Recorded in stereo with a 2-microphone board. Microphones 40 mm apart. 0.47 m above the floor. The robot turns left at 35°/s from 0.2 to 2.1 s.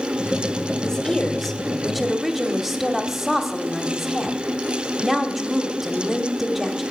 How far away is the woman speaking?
About 1.0 m.